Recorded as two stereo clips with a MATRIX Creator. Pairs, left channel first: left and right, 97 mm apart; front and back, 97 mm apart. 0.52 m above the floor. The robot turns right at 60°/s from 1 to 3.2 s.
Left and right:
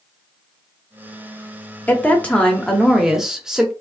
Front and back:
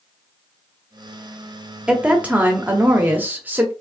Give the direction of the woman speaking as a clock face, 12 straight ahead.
8 o'clock.